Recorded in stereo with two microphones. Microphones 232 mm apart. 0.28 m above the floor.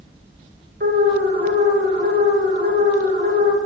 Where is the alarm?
45° right (ahead or behind), 5 m.